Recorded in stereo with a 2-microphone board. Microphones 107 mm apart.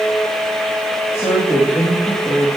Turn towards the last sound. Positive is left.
turn(degrees=25)  # may be behind; listen again after turning